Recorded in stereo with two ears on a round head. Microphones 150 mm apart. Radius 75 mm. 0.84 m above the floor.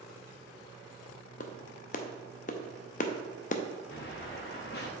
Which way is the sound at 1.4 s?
50° left (ahead or behind).